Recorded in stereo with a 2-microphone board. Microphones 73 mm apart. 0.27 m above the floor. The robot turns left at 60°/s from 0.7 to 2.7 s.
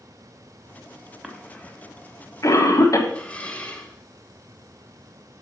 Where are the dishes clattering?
15° left (ahead or behind), 1.2 m.